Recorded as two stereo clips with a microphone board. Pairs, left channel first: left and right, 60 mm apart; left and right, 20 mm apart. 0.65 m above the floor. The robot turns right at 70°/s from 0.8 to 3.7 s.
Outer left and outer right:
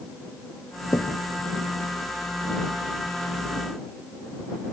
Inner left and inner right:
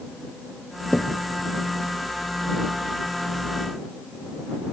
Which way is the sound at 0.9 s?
85° left.